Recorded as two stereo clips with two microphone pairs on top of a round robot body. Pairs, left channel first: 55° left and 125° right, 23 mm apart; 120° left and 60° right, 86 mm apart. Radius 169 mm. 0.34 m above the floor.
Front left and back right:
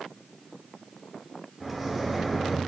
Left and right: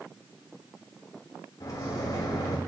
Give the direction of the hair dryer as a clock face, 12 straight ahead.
No hair dryer in this recording.